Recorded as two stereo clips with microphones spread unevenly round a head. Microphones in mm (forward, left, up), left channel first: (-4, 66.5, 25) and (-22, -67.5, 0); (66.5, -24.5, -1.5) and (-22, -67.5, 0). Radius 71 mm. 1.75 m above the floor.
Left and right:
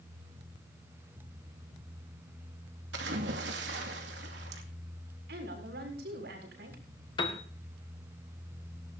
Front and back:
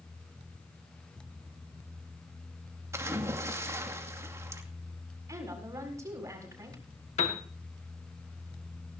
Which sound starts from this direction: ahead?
A piano, at 7.2 s.